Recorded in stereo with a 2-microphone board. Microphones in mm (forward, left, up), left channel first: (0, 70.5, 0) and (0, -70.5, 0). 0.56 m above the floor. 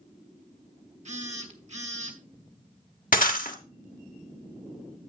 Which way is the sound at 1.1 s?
55° right (ahead or behind).